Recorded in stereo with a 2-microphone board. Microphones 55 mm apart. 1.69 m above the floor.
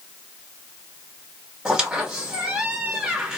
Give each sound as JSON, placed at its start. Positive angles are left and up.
{"t": 1.6, "sound": "a squeak", "side_deg": -15, "distance_m": 1.2}